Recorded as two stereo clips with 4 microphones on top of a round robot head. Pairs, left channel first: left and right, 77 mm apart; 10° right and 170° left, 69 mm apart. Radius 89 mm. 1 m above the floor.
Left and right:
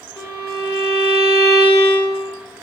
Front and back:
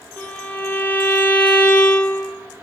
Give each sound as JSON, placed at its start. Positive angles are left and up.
{"t": 0.2, "sound": "a violin", "azimuth_deg": 55, "distance_m": 3.0}